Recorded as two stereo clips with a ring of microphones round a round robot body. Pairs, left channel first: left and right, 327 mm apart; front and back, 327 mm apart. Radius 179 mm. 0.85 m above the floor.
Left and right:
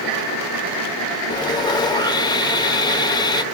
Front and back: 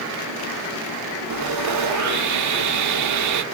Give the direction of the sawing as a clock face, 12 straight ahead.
6 o'clock.